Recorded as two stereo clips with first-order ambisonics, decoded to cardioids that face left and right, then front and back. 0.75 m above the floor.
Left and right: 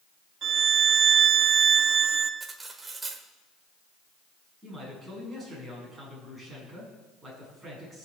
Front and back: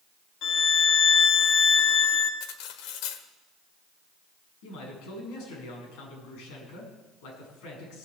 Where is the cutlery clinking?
15° right, 1.3 m.